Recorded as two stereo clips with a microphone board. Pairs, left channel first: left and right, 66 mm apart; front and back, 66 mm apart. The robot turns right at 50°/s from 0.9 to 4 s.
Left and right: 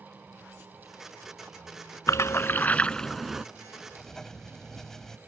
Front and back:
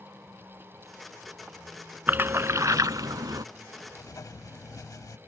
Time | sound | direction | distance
2.1 | a splash | 120° left | ?
3.9 | writing | 5° left | ?